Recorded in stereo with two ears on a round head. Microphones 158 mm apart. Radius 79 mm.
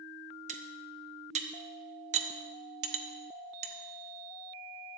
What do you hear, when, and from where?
0.5 s cutlery clinking: 40° right (ahead or behind), 1.2 m